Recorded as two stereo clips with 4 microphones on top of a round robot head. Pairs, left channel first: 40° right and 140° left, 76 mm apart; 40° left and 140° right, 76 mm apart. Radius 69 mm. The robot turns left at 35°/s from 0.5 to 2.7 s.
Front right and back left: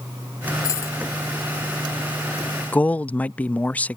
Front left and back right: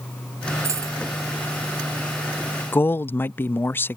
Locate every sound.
0.6 s a dropped coin: 85° right; by 1.0 s 100° right
2.7 s a man speaking: 15° left